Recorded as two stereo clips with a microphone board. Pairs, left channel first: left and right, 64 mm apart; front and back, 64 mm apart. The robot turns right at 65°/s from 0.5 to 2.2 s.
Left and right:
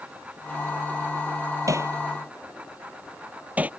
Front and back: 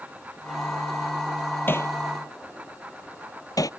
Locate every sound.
1.7 s hammering: 55° right; by 3.7 s 20° right